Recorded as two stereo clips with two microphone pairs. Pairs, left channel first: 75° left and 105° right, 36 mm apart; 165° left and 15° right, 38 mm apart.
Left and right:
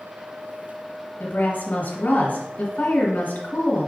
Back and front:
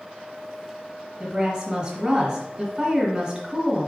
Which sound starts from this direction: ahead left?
A woman speaking, at 1.2 s.